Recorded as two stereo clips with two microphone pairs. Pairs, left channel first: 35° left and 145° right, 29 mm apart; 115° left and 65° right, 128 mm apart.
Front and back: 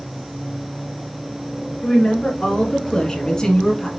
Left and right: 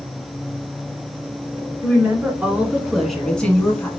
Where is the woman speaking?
5° right, 2.0 m; by 3.9 s 65° left, 1.6 m.